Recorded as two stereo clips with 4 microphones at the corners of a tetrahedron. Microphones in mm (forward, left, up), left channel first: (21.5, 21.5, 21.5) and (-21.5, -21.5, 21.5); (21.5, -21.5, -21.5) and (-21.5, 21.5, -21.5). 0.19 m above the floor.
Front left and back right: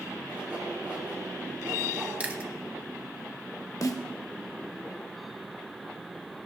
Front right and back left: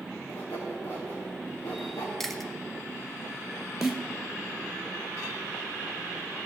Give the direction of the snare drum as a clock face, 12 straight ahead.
10 o'clock.